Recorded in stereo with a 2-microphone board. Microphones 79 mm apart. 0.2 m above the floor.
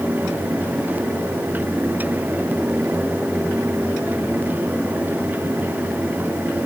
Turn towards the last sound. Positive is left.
No sound to turn to.